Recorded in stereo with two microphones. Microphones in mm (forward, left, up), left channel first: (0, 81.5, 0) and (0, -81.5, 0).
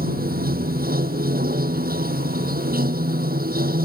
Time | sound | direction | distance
0.0 | running water | 65° right (ahead or behind) | ?